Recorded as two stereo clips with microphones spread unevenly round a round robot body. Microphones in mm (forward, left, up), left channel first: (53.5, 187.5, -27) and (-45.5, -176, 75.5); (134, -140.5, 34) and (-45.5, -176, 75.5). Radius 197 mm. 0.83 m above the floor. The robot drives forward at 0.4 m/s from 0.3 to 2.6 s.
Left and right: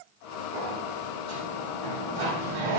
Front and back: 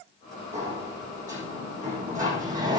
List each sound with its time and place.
0.5 s a sliding door: 120° right, 6.5 m; by 2.8 s 125° right, 7 m